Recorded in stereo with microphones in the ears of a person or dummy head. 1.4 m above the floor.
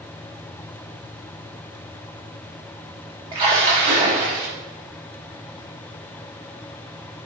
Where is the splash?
25° right (ahead or behind), 0.6 m.